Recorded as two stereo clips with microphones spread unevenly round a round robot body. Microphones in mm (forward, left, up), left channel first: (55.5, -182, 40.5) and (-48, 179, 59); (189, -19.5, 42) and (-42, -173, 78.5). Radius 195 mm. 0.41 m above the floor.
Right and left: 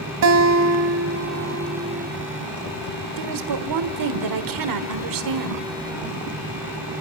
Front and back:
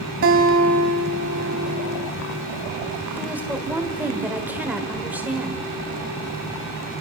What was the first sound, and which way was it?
A guitar, 160° left.